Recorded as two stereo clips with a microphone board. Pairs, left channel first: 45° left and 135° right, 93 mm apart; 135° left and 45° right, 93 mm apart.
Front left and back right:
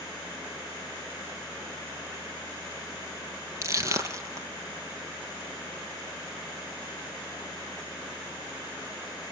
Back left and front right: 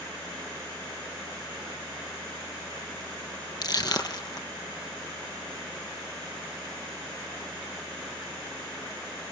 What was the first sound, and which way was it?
Crushing, 170° left.